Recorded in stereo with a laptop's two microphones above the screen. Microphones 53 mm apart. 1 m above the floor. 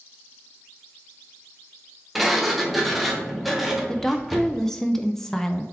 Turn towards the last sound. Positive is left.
turn(degrees=10)  # may be behind; listen again after turning